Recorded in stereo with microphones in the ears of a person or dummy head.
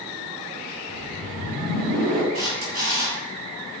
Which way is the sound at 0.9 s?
60° right (ahead or behind).